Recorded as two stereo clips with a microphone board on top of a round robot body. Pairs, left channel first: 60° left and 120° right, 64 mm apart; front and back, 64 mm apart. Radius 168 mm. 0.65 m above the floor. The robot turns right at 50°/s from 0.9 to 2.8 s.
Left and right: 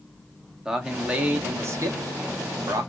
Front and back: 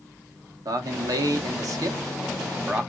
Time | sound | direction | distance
0.7 | a man speaking | 160° left | 1.2 m